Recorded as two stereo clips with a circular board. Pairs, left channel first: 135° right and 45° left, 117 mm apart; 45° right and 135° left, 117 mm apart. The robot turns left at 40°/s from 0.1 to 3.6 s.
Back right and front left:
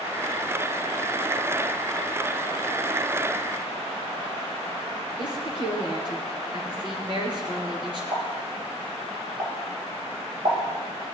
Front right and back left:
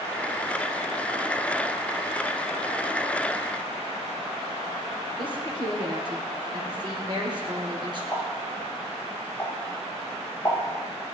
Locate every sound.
5.2 s a woman speaking: 90° left, 4.5 m
8.1 s a pop: 30° left, 7 m